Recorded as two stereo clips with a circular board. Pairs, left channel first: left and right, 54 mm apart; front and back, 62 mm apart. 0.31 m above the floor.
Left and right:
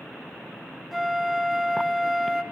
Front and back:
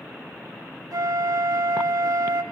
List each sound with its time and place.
0.9 s a flute: 175° right, 0.7 m